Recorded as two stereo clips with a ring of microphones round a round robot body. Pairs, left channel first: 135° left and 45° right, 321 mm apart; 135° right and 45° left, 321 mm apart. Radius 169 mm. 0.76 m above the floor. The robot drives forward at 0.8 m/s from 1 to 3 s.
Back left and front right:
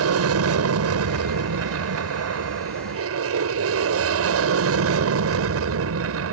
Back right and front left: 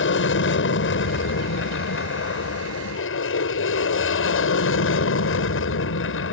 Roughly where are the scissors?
I don't hear scissors.